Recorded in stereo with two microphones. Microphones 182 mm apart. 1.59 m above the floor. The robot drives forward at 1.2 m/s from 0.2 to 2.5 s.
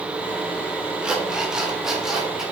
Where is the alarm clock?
5° right (ahead or behind), 1.4 m; by 2.4 s centre (ahead or behind), 3 m.